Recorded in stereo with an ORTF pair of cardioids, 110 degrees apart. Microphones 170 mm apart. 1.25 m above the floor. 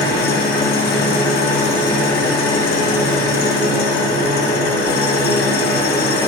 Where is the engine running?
65° left, 1.0 m.